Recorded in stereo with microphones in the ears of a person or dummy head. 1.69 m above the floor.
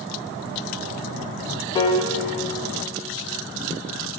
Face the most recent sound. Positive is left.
turn(degrees=25)  # may be behind; listen again after turning